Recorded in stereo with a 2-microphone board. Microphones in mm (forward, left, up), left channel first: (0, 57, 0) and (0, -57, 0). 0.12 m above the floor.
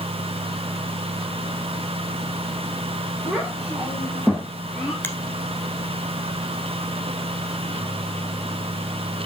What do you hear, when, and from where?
3.3 s a child speaking: 10° right (ahead or behind), 4.5 m; by 4.9 s 10° left (ahead or behind), 3.5 m
5.0 s a finger snap: 20° left (ahead or behind), 1.1 m